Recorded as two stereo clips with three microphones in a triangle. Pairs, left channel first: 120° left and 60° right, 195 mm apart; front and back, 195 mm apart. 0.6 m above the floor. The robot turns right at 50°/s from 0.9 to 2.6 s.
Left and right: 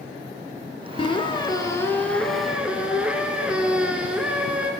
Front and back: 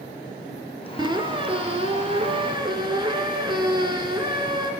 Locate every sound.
1.0 s a squeak: 140° left, 0.6 m; by 4.7 s 140° right, 0.6 m